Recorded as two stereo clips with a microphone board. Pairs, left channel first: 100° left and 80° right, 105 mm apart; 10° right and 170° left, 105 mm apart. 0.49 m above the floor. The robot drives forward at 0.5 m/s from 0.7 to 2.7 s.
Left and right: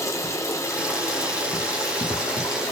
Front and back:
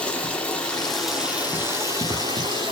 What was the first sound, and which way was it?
Running water, 65° left.